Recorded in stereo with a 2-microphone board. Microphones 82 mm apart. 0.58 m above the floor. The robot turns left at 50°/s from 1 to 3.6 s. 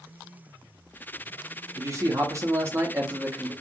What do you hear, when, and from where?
1.8 s a man speaking: 75° right, 0.7 m; by 3.5 s 165° right, 0.7 m